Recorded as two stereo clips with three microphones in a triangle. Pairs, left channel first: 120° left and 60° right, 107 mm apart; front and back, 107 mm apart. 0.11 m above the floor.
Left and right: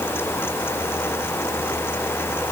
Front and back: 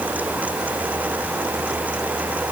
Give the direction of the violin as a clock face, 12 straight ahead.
No violin in this recording.